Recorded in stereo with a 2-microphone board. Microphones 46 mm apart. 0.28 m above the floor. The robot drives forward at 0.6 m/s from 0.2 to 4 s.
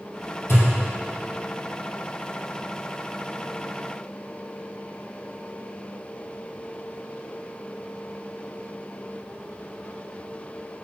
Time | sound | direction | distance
0.5 | a thud | 85° left | 3.5 m